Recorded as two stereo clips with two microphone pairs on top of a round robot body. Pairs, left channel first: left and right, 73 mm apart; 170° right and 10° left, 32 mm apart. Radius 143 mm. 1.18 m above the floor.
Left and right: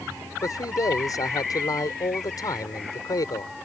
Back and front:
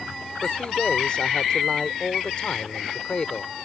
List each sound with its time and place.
0.4 s a man speaking: 130° left